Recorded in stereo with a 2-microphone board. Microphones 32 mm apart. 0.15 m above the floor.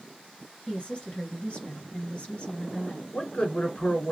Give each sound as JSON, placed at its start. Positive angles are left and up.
{"t": 0.7, "sound": "a woman speaking", "side_deg": 40, "distance_m": 2.5}
{"t": 3.1, "sound": "a man speaking", "side_deg": 40, "distance_m": 1.8}